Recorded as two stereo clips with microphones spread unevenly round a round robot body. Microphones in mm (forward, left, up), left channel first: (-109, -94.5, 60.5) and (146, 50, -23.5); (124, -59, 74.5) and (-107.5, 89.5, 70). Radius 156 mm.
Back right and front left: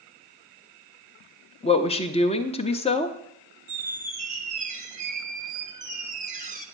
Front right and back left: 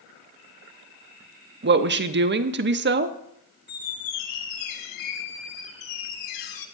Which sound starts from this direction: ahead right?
A squeak, at 3.7 s.